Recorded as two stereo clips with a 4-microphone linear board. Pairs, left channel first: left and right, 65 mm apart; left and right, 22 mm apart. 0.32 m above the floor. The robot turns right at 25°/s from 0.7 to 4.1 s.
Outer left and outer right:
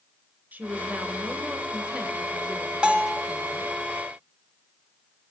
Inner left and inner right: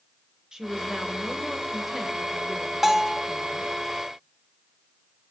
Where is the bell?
15° right (ahead or behind), 1.1 m; by 3.2 s 20° right (ahead or behind), 1.1 m.